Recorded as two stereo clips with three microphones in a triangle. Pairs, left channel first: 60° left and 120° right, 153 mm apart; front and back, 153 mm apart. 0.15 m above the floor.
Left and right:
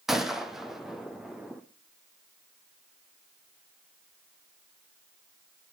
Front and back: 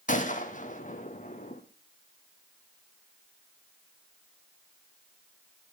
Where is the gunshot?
30° right, 1.5 m.